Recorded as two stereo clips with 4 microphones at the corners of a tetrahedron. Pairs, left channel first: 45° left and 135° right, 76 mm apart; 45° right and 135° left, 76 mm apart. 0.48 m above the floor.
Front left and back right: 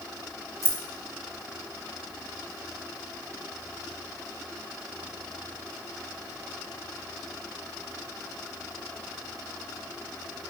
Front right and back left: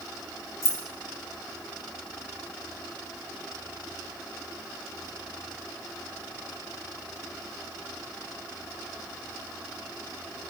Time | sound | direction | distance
0.6 | keys jangling | 5° left | 2 m